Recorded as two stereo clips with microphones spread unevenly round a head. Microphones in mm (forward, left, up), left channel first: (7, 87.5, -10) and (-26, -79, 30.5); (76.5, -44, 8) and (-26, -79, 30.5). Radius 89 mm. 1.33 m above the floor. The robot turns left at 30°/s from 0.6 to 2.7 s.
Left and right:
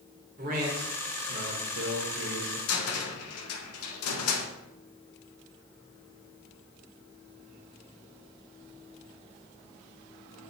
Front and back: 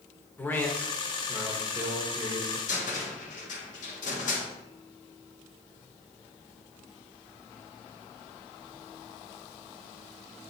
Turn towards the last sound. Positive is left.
turn(degrees=75)